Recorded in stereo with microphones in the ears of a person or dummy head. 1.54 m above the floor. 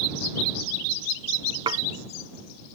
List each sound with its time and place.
1.7 s dishes clattering: 25° right (ahead or behind)